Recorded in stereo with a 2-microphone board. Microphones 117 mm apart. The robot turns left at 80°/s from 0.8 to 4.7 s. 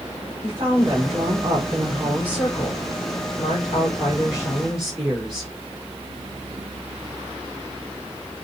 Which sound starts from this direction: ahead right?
A woman speaking, at 0.4 s.